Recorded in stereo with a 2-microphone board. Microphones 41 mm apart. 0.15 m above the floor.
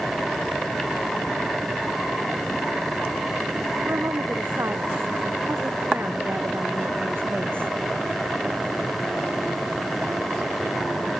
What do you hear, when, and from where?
3.9 s a woman speaking: 80° right; by 7.7 s 65° right (ahead or behind)